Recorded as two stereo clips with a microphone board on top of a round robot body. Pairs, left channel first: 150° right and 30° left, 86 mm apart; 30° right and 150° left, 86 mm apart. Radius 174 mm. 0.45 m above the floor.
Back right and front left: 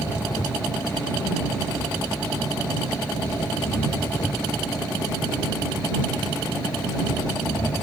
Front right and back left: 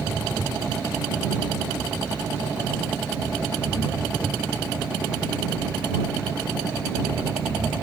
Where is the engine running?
110° right.